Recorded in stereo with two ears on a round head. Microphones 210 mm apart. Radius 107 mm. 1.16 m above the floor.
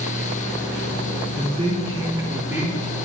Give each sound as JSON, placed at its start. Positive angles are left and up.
{"t": 1.4, "sound": "a man speaking", "side_deg": -35, "distance_m": 3.0}